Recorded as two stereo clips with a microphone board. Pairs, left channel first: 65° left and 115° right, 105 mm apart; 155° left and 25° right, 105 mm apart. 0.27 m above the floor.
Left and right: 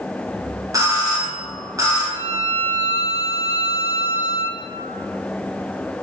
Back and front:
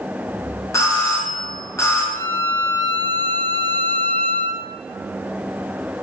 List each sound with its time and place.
0.7 s a doorbell: 155° right, 2 m
2.1 s a violin: 135° right, 0.7 m